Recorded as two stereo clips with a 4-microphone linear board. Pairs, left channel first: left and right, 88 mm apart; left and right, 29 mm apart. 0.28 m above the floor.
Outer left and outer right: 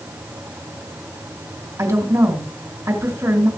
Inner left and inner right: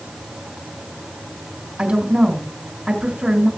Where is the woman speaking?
35° right (ahead or behind), 3 m.